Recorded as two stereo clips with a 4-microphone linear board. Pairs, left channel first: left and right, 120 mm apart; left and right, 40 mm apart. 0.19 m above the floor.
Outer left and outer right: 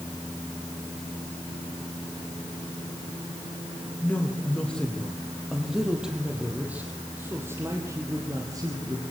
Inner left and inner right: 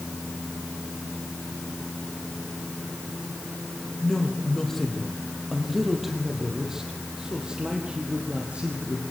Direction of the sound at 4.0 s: 15° left (ahead or behind).